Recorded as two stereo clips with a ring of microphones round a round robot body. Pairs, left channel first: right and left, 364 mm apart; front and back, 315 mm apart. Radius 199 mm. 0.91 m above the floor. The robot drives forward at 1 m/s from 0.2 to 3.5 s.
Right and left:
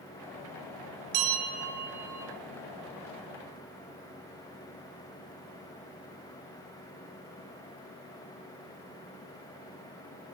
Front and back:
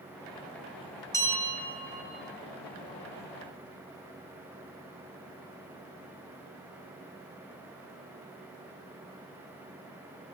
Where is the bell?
80° left, 6 m; by 2.2 s 90° left, 6 m.